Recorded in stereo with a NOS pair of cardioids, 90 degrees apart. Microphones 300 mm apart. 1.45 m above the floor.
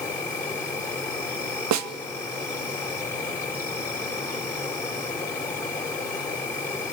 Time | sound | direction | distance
0.0 | an insect | 10° left | 5 m
1.7 | a snare drum | 65° right | 1.2 m